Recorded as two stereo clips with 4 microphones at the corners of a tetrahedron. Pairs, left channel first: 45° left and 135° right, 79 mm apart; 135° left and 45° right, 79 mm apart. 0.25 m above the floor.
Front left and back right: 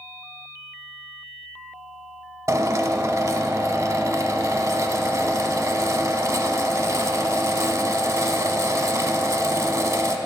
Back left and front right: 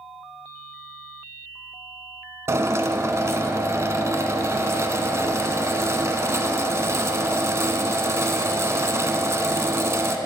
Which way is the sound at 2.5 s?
95° right.